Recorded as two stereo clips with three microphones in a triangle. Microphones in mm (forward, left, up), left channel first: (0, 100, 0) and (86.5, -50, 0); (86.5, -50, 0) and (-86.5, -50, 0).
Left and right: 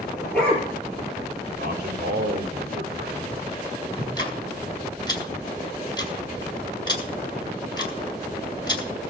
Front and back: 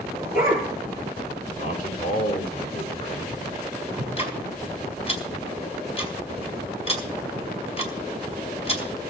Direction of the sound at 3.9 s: 55° left.